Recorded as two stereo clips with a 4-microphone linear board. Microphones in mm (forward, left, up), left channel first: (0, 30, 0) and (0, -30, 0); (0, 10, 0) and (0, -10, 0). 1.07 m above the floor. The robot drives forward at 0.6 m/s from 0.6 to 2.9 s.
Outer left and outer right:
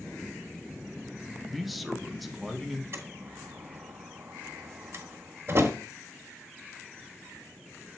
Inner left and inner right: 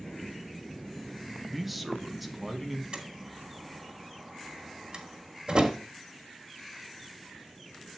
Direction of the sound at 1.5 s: Centre (ahead or behind).